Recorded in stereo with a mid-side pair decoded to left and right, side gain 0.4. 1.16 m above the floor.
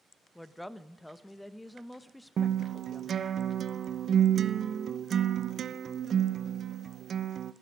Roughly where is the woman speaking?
Ahead.